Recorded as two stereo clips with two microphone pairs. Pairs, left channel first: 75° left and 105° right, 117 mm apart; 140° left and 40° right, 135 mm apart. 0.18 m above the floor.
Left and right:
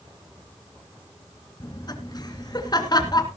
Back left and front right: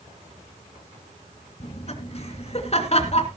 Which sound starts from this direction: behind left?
Laughter, at 1.6 s.